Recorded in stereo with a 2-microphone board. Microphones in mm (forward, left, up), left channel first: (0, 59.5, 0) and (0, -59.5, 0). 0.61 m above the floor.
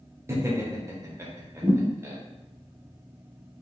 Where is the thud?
45° right (ahead or behind), 1.1 m.